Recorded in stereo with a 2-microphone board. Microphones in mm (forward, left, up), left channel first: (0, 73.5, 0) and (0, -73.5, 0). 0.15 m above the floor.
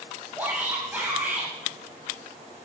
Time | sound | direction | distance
0.4 | a shout | 15° right (ahead or behind) | 6.5 m